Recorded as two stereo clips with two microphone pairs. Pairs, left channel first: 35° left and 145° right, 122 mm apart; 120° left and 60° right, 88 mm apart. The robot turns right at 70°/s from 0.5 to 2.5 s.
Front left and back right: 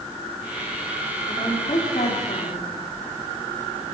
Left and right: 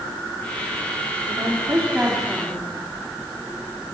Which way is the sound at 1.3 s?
35° right.